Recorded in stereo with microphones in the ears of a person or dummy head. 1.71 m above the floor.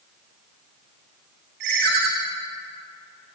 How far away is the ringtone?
About 1.5 m.